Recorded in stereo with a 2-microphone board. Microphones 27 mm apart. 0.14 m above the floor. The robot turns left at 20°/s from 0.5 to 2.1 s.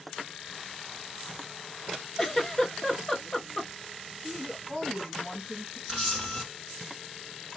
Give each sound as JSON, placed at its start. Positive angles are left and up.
{"t": 2.2, "sound": "a giggle", "side_deg": 10, "distance_m": 0.6}
{"t": 4.2, "sound": "a woman speaking", "side_deg": 5, "distance_m": 1.5}
{"t": 5.9, "sound": "a camera shutter", "side_deg": -5, "distance_m": 1.3}